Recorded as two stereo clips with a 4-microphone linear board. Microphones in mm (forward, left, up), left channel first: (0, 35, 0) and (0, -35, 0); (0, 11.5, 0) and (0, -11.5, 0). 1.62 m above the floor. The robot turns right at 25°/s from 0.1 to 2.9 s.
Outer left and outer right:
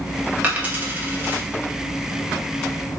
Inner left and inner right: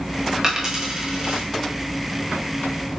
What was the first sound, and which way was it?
A dropped coin, 20° right (ahead or behind).